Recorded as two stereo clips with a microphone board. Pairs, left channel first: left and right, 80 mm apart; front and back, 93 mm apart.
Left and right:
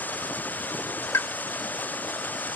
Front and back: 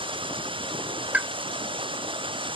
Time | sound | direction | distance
0.0 | running water | 160° left | ?
1.1 | a pop | 115° left | ?